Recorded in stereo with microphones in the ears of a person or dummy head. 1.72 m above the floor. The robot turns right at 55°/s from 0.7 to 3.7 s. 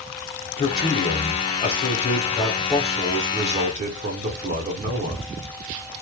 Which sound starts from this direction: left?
A man speaking, at 0.6 s.